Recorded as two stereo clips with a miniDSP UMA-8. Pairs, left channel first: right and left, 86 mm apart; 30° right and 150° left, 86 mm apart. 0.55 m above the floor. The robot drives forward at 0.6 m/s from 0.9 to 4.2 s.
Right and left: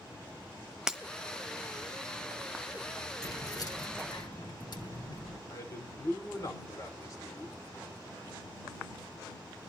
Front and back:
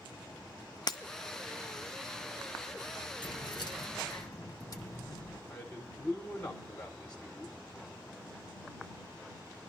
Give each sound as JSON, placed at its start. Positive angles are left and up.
{"t": 0.9, "sound": "breaking glass", "azimuth_deg": 10, "distance_m": 1.0}
{"t": 3.2, "sound": "keys jangling", "azimuth_deg": -50, "distance_m": 1.4}
{"t": 5.5, "sound": "a man speaking", "azimuth_deg": -100, "distance_m": 1.9}